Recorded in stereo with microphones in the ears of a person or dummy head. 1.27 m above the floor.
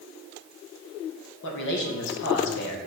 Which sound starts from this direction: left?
A man speaking, at 1.4 s.